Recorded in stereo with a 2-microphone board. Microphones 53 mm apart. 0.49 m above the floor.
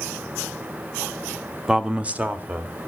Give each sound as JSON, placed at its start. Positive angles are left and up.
{"t": 1.7, "sound": "a man speaking", "side_deg": -15, "distance_m": 0.8}